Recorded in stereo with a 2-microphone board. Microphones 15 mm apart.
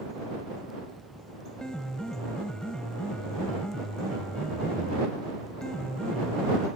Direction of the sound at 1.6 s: 65° left (ahead or behind).